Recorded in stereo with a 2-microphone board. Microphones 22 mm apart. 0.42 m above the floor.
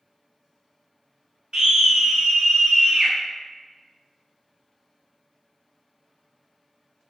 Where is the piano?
I don't hear a piano.